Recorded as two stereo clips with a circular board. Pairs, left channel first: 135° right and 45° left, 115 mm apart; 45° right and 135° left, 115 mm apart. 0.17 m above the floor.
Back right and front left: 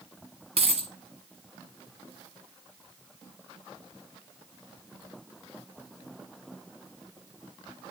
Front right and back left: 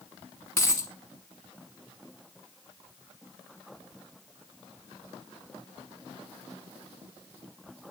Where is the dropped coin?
25° left, 0.9 m.